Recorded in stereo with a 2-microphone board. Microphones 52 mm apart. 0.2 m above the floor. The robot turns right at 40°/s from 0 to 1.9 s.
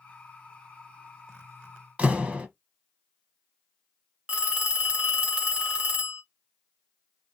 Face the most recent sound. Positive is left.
turn(degrees=-20)  # may be behind; listen again after turning